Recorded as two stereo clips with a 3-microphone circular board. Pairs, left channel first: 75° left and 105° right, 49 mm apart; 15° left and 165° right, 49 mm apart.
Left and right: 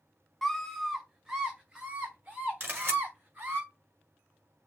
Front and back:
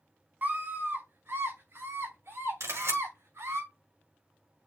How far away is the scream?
About 1.9 m.